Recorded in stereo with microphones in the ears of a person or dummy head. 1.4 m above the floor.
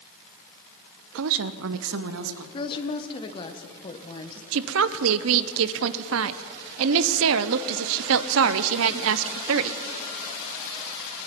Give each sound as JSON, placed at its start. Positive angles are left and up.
{"t": 1.1, "sound": "a woman speaking", "side_deg": -70, "distance_m": 0.6}
{"t": 2.5, "sound": "a woman speaking", "side_deg": 25, "distance_m": 1.1}
{"t": 4.5, "sound": "a woman speaking", "side_deg": -70, "distance_m": 0.7}